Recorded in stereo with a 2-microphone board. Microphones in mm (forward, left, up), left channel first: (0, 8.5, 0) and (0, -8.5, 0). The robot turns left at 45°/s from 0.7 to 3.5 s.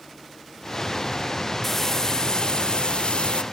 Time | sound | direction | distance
1.6 | frying | 160° left | 0.6 m